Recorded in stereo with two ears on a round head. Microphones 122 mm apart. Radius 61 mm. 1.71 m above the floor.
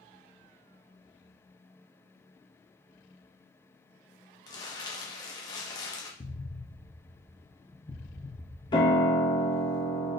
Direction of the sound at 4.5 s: 25° left (ahead or behind).